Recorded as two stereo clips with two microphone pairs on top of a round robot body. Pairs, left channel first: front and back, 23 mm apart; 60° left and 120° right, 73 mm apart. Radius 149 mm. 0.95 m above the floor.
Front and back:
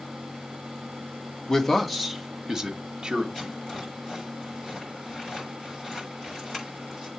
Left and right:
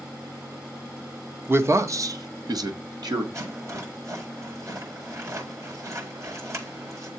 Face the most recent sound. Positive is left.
turn(degrees=-75)